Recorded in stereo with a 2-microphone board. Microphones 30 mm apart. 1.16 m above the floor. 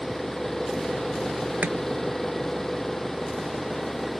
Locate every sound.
0.0 s an engine running: 20° left (ahead or behind)
1.6 s chopping: 85° right